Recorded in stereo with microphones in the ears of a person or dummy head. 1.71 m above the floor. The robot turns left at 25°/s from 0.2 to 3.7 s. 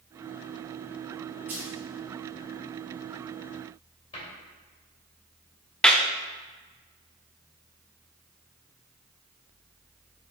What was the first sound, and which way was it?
A dropped coin, 10° right (ahead or behind).